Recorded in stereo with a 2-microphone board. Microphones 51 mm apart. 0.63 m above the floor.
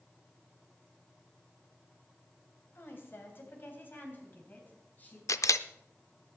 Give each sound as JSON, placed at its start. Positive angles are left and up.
{"t": 2.8, "sound": "a woman speaking", "side_deg": 50, "distance_m": 3.0}
{"t": 5.3, "sound": "a camera shutter", "side_deg": 85, "distance_m": 0.5}